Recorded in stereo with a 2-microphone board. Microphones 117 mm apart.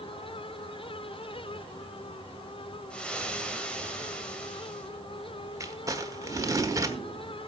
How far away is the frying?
About 1.9 m.